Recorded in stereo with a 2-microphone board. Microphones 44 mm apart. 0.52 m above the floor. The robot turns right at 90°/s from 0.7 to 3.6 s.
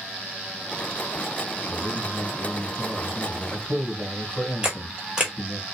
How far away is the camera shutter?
About 1.2 m.